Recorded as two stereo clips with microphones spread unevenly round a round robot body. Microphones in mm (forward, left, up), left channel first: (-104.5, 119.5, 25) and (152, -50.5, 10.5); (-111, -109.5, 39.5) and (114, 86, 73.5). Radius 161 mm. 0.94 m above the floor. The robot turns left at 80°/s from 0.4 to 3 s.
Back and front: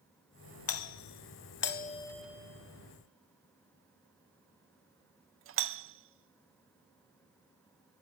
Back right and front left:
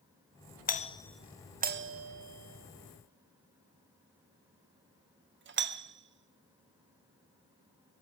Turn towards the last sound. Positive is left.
turn(degrees=-10)